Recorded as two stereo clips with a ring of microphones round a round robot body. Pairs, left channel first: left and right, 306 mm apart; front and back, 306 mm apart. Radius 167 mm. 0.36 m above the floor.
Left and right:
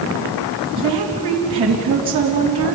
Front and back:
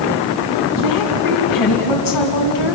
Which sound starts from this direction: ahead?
A woman speaking, at 0.8 s.